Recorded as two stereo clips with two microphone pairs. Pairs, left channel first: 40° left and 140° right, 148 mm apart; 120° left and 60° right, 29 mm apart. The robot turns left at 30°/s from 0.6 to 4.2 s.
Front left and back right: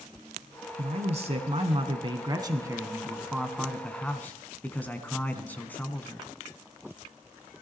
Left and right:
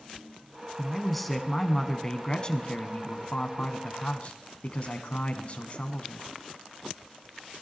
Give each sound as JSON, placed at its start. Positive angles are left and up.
{"t": 0.8, "sound": "a man speaking", "azimuth_deg": -140, "distance_m": 1.4}